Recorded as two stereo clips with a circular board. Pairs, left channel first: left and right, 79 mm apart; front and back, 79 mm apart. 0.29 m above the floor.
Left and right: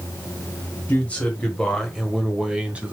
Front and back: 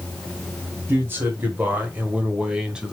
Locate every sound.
0.9 s a man speaking: 145° left, 1.5 m; by 2.9 s 115° right, 1.3 m